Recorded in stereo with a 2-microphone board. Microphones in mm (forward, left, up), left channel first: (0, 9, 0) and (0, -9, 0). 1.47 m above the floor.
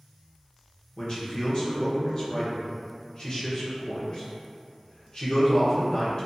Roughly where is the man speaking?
Left.